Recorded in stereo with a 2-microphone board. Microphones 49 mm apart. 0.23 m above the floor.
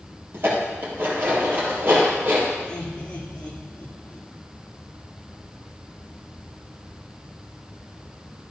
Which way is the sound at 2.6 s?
20° left (ahead or behind).